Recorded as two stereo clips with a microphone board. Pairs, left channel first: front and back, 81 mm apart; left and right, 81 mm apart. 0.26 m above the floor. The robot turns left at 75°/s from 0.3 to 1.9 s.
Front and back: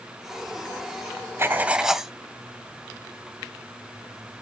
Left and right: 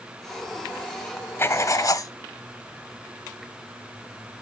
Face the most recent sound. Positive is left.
turn(degrees=95)